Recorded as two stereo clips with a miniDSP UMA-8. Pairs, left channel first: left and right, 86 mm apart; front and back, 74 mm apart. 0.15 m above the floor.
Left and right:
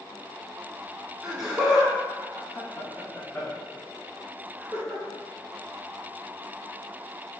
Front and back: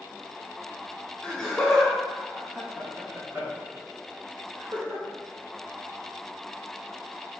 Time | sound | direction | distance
1.2 | laughter | 25° right | 1.1 m